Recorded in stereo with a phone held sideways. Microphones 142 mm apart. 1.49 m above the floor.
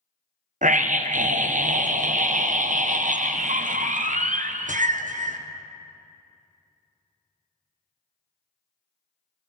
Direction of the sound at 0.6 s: 70° right (ahead or behind).